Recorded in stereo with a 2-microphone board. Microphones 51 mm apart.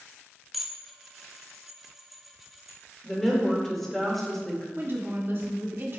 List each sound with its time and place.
0.5 s dishes clattering: 5° right (ahead or behind), 0.8 m
3.0 s a woman speaking: 5° left (ahead or behind), 1.9 m
4.8 s a woman speaking: 45° right (ahead or behind), 1.5 m